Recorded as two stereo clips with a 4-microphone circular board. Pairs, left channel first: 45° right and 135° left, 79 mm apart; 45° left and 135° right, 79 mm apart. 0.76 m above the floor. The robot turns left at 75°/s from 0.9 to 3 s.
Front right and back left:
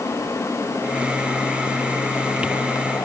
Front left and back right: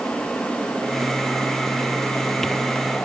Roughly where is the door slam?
No door slam in this recording.